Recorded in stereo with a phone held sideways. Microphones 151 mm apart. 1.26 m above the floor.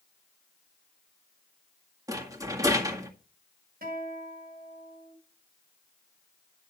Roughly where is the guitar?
Right.